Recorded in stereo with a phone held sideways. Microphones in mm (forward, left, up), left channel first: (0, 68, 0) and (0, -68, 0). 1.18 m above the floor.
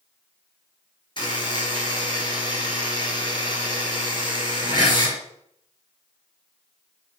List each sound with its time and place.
1.2 s a buzzer: 40° left (ahead or behind), 4.5 m